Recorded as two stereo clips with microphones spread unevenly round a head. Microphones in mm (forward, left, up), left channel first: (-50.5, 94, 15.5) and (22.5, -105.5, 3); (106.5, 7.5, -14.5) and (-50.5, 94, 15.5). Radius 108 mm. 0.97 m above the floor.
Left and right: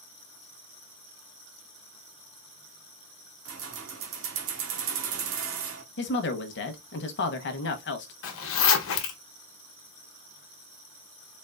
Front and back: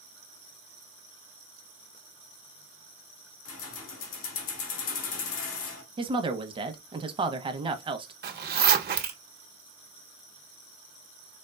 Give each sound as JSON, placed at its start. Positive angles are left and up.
{"t": 3.5, "sound": "keys jangling", "azimuth_deg": -35, "distance_m": 1.2}
{"t": 6.0, "sound": "a woman speaking", "azimuth_deg": 85, "distance_m": 1.0}
{"t": 8.2, "sound": "a zipper", "azimuth_deg": 120, "distance_m": 1.1}